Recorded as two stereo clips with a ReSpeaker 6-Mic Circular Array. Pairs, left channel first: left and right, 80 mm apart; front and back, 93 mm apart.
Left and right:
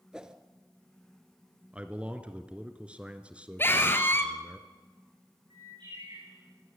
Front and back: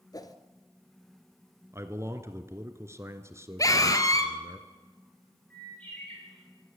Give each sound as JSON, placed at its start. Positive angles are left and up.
{"t": 0.1, "sound": "a whoosh", "azimuth_deg": -10, "distance_m": 1.3}
{"t": 1.7, "sound": "a man speaking", "azimuth_deg": -155, "distance_m": 1.7}
{"t": 3.6, "sound": "a scream", "azimuth_deg": 35, "distance_m": 2.5}
{"t": 5.5, "sound": "a bird", "azimuth_deg": -75, "distance_m": 8.0}